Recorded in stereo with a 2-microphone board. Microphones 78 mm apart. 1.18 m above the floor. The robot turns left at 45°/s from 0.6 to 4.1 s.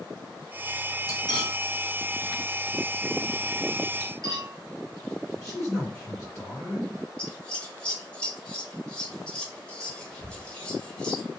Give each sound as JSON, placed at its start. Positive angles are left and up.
{"t": 1.1, "sound": "cutlery clinking", "side_deg": 50, "distance_m": 0.8}
{"t": 4.0, "sound": "cutlery clinking", "side_deg": -50, "distance_m": 0.7}
{"t": 5.4, "sound": "a man speaking", "side_deg": 30, "distance_m": 1.4}
{"t": 7.2, "sound": "scissors", "side_deg": 15, "distance_m": 0.8}